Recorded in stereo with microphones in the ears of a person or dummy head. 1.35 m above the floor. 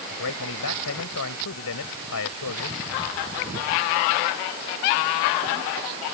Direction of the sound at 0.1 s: 90° left.